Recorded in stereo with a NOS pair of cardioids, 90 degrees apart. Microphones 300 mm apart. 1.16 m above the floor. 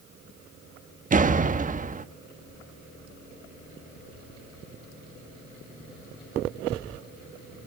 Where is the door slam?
25° right, 1.0 m.